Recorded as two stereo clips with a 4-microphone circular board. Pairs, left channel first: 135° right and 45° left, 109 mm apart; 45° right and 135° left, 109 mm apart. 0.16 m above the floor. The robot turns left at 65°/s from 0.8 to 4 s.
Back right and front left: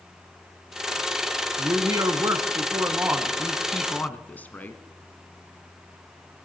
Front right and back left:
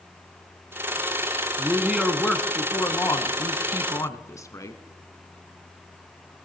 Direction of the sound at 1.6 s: 85° left.